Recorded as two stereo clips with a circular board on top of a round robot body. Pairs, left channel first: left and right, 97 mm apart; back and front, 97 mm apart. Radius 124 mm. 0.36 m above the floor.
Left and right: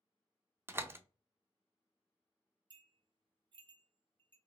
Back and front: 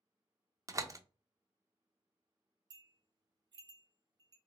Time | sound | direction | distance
0.7 | a door slam | 35° right | 0.6 m
2.7 | a bell | 50° right | 0.6 m